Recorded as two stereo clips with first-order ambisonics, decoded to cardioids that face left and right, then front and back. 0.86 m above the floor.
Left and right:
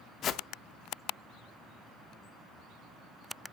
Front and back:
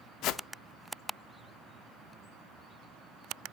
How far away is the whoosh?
About 0.6 m.